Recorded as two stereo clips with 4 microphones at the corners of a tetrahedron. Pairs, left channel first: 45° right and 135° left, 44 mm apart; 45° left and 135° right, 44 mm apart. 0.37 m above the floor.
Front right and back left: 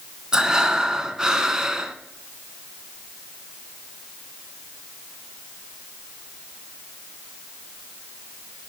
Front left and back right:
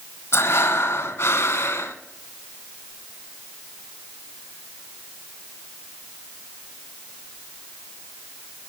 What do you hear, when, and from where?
0.3 s breathing: 60° left, 0.9 m